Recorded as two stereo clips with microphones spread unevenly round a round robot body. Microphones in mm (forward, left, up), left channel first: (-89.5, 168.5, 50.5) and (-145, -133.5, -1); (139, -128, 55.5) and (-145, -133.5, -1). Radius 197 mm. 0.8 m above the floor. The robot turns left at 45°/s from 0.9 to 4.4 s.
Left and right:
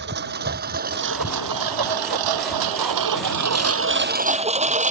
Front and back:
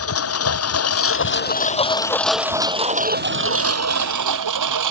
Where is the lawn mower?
35° right; by 4.9 s 170° right.